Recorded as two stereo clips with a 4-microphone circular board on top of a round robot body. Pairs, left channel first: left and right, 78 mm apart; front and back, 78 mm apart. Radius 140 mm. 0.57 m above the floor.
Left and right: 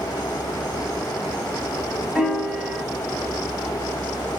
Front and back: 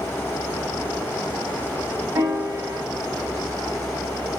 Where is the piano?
170° right, 1.6 m.